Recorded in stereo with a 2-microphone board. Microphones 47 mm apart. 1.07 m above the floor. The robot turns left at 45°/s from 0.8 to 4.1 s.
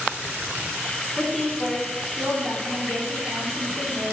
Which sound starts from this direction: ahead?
A woman speaking, at 1.2 s.